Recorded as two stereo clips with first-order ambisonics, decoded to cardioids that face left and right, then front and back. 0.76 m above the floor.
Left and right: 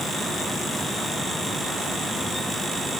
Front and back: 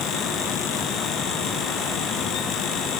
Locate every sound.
Only background noise.